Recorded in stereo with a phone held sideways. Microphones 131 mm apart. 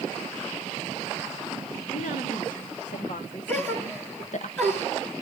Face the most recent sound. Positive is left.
turn(degrees=15)  # may be behind; listen again after turning